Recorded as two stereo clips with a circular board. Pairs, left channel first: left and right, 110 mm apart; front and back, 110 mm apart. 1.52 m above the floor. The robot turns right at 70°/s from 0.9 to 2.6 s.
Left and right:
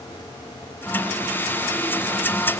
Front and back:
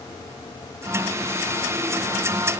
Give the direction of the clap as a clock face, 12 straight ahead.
No clap in this recording.